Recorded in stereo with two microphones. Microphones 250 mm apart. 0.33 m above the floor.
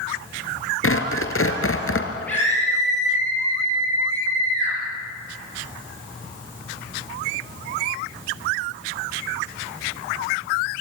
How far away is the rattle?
I don't hear a rattle.